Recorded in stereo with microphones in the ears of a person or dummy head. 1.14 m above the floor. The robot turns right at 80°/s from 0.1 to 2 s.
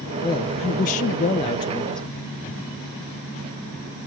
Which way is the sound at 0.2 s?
35° left.